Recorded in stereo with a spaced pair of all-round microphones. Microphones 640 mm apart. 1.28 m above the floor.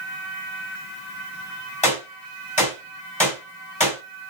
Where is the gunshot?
10° left (ahead or behind), 3.5 m.